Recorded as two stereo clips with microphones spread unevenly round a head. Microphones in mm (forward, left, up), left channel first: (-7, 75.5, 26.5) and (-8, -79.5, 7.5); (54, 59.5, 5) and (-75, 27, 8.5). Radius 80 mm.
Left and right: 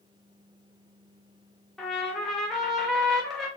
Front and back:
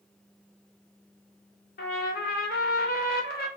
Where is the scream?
No scream in this recording.